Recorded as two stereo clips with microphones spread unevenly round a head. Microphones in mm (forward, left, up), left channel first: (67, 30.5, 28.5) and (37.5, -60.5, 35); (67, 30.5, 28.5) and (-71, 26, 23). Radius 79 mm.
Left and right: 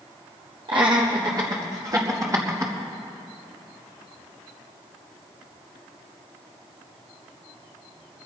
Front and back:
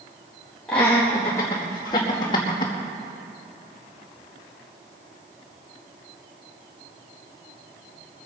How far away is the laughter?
About 1.7 m.